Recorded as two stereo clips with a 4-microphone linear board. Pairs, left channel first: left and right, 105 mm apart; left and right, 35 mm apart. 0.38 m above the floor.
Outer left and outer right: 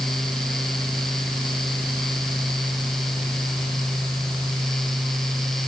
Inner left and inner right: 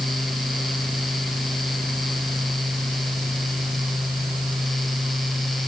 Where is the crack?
No crack in this recording.